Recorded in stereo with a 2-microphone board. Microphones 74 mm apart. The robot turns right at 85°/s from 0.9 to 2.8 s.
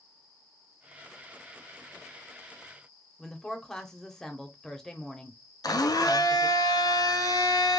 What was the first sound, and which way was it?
A woman speaking, 10° left (ahead or behind).